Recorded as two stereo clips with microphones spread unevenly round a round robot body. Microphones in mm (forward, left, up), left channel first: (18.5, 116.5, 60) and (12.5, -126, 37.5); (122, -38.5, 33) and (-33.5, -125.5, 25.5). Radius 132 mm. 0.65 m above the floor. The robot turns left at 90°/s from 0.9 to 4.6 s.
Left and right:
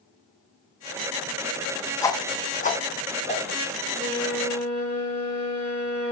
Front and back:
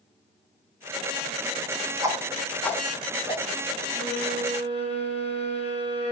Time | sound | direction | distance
2.0 | a whoosh | 165° left | 1.2 m
4.0 | a violin | 35° left | 4 m